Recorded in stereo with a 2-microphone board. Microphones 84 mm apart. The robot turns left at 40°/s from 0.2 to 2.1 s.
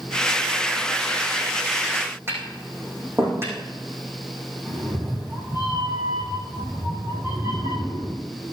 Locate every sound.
2.3 s tapping: 30° right (ahead or behind), 6 m
4.7 s a cat meowing: 30° right (ahead or behind), 5.5 m